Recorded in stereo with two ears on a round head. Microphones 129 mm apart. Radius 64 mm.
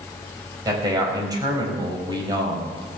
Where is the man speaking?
25° right (ahead or behind), 4 m.